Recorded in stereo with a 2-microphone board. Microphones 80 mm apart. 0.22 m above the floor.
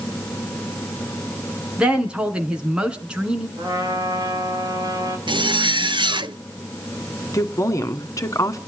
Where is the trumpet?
55° right (ahead or behind), 5.5 m.